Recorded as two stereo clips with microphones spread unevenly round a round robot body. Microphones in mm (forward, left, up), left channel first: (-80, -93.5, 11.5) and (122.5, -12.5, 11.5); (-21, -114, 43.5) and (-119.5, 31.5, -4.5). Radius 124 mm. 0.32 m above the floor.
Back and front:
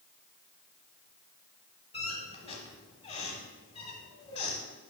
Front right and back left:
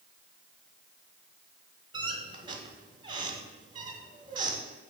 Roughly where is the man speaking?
No man speaking in this recording.